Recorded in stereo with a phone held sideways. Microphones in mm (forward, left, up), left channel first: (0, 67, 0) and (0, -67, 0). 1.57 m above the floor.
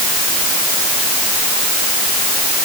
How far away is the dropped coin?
No dropped coin in this recording.